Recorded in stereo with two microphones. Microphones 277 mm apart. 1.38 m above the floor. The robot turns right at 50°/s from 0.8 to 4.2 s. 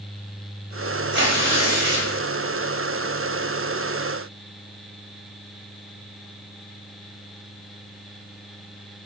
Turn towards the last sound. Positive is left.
turn(degrees=35)